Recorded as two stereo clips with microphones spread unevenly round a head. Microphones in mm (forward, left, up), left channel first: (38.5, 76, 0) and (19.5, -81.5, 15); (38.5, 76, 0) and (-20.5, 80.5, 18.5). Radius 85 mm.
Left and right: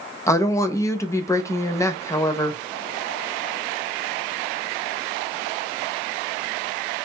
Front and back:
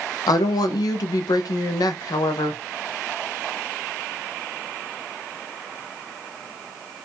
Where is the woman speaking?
10° left, 0.5 m.